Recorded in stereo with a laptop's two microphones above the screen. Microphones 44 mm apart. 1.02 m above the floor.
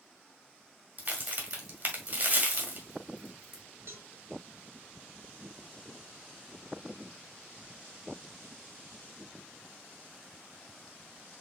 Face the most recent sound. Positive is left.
turn(degrees=-60)  # may be behind; listen again after turning